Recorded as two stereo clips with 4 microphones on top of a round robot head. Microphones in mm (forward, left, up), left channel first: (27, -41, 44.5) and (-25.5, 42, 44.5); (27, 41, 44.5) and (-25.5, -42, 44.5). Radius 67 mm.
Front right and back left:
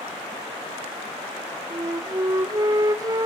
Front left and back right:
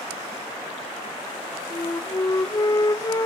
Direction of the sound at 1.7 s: 90° left.